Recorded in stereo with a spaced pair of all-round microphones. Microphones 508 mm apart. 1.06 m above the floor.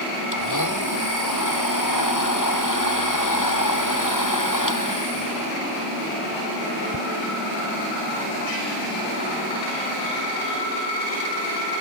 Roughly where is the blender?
Left.